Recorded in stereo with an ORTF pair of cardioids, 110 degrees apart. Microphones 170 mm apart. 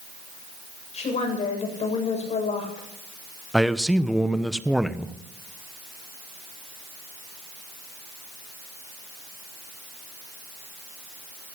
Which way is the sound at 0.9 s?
40° left.